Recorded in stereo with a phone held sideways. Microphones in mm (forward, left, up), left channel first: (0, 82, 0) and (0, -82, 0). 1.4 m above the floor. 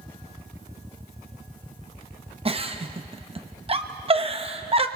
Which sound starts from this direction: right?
A giggle, at 2.5 s.